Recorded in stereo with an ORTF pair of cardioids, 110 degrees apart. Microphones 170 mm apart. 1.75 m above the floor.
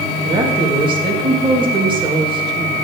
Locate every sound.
0.2 s a woman speaking: 30° right, 2 m